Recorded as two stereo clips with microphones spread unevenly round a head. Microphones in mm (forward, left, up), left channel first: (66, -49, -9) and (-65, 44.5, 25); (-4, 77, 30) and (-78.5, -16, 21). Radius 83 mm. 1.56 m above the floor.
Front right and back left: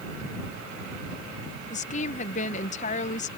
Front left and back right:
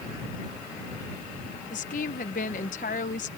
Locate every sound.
1.7 s a woman speaking: 10° left